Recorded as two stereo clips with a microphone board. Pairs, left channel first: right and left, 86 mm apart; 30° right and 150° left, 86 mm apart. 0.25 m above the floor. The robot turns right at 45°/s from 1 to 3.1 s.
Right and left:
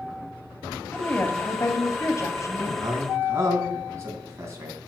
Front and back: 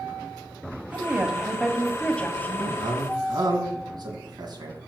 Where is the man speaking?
125° left, 2.5 m; by 4.8 s 140° left, 2.5 m.